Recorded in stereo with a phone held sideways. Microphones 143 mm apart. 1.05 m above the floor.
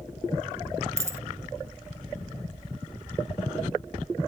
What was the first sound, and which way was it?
A dropped coin, 20° right (ahead or behind).